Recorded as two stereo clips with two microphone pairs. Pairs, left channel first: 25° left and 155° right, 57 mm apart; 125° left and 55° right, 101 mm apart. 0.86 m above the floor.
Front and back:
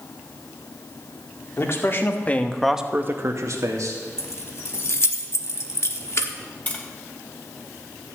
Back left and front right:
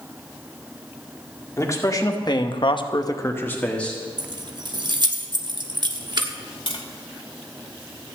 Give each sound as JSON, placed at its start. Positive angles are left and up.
{"t": 1.6, "sound": "a man speaking", "azimuth_deg": 65, "distance_m": 2.0}
{"t": 4.2, "sound": "keys jangling", "azimuth_deg": -15, "distance_m": 1.0}
{"t": 6.7, "sound": "tapping", "azimuth_deg": 90, "distance_m": 2.5}